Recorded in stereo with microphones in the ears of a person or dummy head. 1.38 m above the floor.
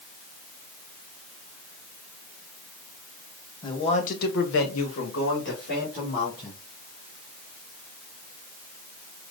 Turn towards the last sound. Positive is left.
turn(degrees=45)  # may be behind; listen again after turning